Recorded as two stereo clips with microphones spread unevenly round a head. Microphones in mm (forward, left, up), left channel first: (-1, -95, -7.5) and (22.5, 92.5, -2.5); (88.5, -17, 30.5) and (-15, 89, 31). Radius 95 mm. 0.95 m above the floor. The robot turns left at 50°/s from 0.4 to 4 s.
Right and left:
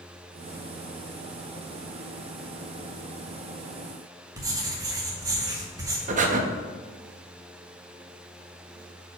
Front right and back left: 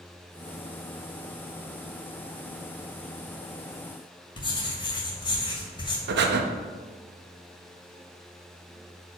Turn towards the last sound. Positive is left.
turn(degrees=135)